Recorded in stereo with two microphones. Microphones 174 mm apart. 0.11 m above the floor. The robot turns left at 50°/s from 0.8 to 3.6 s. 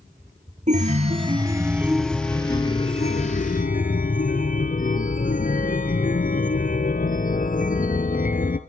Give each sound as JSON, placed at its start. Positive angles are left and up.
{"t": 0.7, "sound": "a chime", "azimuth_deg": -120, "distance_m": 1.0}